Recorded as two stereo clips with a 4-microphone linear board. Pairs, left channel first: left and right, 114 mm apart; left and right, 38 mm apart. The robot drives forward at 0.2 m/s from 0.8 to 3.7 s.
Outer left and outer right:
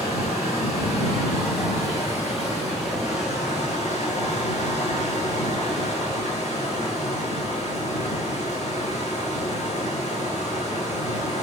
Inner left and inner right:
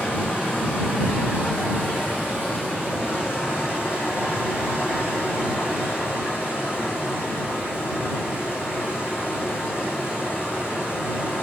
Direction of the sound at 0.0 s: 70° left (ahead or behind).